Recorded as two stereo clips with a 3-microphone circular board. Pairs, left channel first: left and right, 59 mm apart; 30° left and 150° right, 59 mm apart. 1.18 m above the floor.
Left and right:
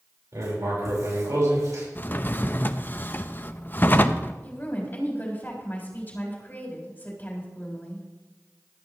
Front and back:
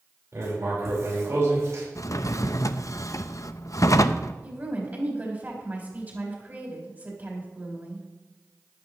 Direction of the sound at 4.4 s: 150° left.